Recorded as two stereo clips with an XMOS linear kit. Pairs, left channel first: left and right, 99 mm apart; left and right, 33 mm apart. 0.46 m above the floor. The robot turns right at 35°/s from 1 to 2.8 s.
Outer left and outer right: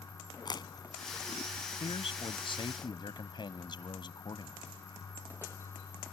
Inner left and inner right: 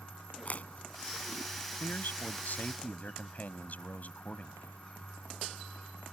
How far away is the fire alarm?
I don't hear a fire alarm.